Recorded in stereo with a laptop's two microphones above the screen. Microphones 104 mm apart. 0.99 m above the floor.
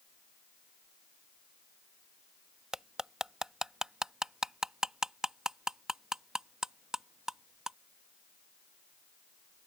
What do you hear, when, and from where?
2.7 s cutlery clinking: 5° right (ahead or behind)